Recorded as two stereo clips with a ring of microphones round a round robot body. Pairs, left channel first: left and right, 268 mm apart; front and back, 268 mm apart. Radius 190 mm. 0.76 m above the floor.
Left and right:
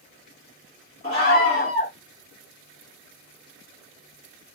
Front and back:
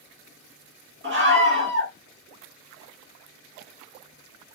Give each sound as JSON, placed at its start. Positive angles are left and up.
{"t": 1.0, "sound": "a scream", "azimuth_deg": 160, "distance_m": 1.4}